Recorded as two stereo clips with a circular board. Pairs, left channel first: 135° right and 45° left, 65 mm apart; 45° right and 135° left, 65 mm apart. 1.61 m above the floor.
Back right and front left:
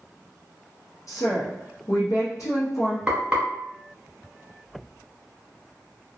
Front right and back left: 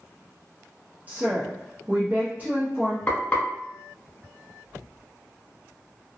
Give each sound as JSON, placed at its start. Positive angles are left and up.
{"t": 1.1, "sound": "a woman speaking", "azimuth_deg": -165, "distance_m": 0.6}
{"t": 3.1, "sound": "frying", "azimuth_deg": -10, "distance_m": 1.4}